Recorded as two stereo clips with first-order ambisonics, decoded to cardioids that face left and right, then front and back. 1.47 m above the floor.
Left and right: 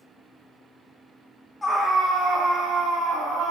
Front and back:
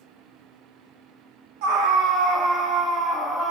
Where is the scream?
175° left, 0.5 m; by 3.5 s 115° right, 1.3 m.